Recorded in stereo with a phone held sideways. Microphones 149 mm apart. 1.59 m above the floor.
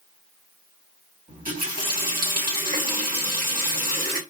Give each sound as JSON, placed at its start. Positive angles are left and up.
{"t": 1.3, "sound": "a running tap", "side_deg": -65, "distance_m": 2.0}